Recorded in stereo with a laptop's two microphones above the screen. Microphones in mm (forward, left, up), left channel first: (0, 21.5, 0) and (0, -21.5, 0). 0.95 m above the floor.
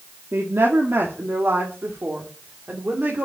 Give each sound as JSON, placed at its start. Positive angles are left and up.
{"t": 0.3, "sound": "a woman speaking", "side_deg": -70, "distance_m": 1.9}